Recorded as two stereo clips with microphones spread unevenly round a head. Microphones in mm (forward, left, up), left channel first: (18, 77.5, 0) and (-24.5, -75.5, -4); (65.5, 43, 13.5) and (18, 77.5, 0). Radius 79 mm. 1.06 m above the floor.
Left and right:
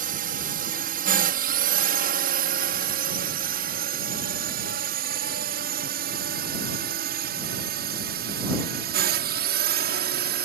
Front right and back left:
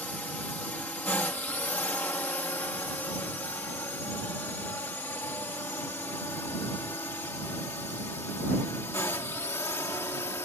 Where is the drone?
110° right; by 10.4 s 100° right.